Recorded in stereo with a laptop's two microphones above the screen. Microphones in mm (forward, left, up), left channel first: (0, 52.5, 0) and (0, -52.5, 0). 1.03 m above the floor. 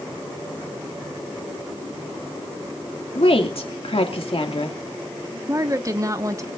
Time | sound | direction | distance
3.1 | a woman speaking | 65° left (ahead or behind) | 2 m
5.5 | a woman speaking | 30° right (ahead or behind) | 1.5 m